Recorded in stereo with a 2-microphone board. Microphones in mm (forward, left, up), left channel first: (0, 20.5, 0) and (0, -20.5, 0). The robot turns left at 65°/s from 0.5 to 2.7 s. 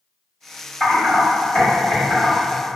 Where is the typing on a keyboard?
5° left (ahead or behind), 1.6 m; by 2.3 s 50° left (ahead or behind), 1.6 m.